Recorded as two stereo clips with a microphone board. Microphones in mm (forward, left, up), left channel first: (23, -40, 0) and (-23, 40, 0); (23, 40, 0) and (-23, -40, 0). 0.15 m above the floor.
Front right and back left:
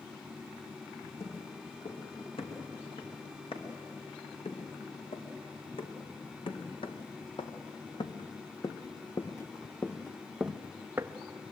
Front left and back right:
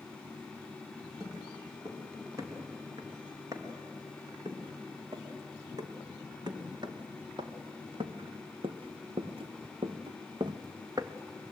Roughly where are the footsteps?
Ahead right.